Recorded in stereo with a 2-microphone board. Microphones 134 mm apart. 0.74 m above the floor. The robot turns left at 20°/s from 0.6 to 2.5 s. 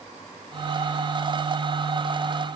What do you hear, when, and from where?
Only background noise.